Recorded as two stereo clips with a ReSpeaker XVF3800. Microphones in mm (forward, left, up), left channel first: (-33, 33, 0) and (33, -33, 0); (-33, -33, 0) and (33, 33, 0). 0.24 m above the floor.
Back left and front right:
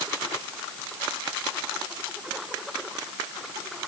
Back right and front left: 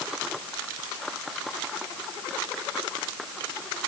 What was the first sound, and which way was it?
Only background noise.